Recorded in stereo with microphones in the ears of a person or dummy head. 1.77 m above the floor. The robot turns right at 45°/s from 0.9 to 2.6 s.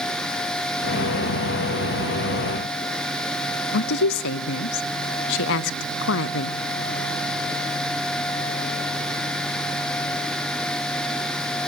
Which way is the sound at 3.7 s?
65° left (ahead or behind).